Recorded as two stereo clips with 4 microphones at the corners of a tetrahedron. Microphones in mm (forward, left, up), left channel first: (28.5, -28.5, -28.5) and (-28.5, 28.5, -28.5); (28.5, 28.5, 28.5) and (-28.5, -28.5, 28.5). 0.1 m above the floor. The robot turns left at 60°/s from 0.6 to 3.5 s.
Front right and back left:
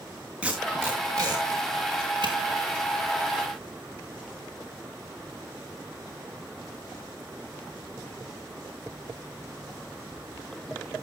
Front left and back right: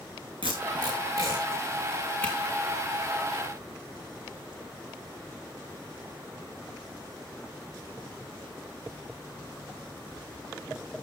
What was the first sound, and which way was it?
Tape being pulled, 145° right.